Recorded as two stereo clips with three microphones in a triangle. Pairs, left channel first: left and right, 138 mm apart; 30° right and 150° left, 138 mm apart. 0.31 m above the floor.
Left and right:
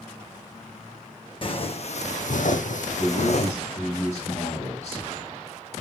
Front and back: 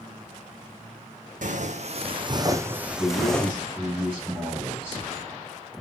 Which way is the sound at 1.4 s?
135° left.